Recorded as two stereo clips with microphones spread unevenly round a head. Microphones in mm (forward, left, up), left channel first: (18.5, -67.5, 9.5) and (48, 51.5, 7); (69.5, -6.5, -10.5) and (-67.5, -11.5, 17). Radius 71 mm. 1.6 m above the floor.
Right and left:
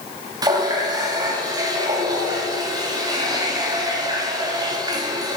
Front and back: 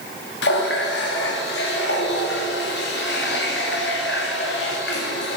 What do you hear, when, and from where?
0.4 s a running tap: 20° left, 2 m